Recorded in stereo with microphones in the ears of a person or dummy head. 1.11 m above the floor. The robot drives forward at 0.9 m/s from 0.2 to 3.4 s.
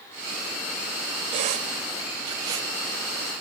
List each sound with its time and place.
1.3 s a squeak: 35° right (ahead or behind), 0.9 m; by 2.7 s 20° right (ahead or behind), 1.6 m